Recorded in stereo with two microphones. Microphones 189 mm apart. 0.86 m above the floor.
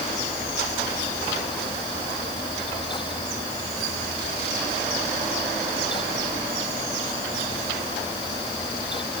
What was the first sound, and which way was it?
Only background noise.